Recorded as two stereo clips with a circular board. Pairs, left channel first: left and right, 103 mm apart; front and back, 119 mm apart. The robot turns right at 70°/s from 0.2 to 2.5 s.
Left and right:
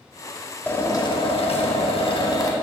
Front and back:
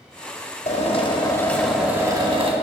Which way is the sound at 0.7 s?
15° left.